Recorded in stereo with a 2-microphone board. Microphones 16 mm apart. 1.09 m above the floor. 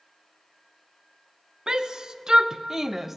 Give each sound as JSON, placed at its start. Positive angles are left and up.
{"t": 1.7, "sound": "a shout", "side_deg": -45, "distance_m": 1.1}